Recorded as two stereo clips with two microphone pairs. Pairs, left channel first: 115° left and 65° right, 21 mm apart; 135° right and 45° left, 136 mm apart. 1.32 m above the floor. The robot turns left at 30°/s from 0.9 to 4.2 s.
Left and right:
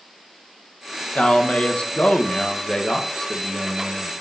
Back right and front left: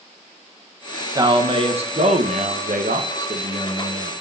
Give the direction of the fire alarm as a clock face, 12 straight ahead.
No fire alarm in this recording.